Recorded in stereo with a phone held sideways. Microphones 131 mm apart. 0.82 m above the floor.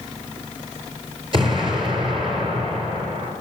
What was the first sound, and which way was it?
An explosion, 40° right (ahead or behind).